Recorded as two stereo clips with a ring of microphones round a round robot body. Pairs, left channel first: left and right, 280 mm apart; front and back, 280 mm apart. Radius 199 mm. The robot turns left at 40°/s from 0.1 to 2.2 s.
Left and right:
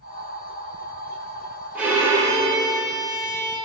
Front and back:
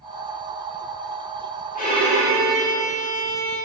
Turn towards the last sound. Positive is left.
turn(degrees=-25)